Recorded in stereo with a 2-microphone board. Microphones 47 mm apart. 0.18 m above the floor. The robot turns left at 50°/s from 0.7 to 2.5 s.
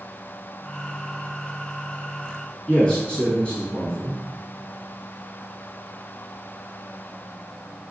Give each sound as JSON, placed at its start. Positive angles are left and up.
{"t": 2.7, "sound": "a man speaking", "side_deg": 20, "distance_m": 1.5}